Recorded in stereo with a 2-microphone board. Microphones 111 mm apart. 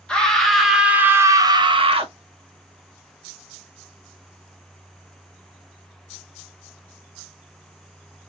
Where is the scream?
5° left (ahead or behind), 1.0 m; by 2.1 s 60° right (ahead or behind), 0.6 m.